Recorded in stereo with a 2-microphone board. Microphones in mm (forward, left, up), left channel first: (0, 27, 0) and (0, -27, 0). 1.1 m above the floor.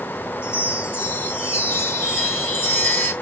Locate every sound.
0.4 s a chime: 45° left (ahead or behind), 2.5 m